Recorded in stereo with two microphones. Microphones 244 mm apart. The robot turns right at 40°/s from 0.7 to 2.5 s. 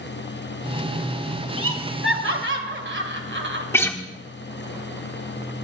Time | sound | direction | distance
1.6 | laughter | 65° right (ahead or behind) | 2 m
3.7 | a guitar | 10° left (ahead or behind) | 1.2 m